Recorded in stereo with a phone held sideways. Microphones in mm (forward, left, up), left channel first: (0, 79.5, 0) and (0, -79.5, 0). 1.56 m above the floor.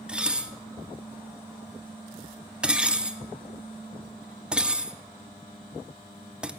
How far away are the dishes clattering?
About 0.5 m.